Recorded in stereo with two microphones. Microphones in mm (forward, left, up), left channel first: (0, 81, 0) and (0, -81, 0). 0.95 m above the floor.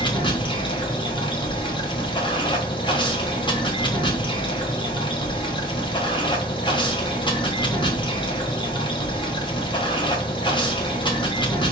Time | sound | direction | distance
0.0 | running water | 30° left (ahead or behind) | 1.1 m